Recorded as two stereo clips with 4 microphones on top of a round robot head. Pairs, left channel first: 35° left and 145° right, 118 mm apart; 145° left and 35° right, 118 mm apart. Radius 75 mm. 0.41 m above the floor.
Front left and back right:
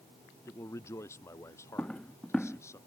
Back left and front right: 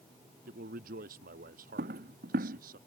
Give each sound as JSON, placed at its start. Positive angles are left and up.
{"t": 0.5, "sound": "a man speaking", "azimuth_deg": -35}
{"t": 1.8, "sound": "footsteps", "azimuth_deg": -45}